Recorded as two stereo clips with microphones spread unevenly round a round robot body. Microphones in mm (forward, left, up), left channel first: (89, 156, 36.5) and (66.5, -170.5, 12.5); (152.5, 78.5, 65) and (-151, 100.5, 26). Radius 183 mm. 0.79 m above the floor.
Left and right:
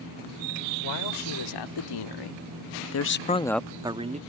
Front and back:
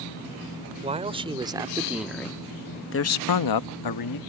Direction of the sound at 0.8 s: 105° left.